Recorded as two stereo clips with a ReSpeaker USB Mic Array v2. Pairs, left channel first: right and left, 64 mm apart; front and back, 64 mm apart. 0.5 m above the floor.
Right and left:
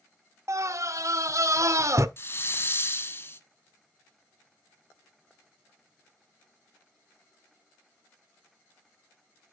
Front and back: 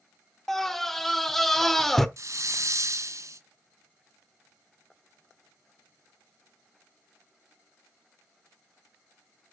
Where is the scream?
85° left, 1.1 m.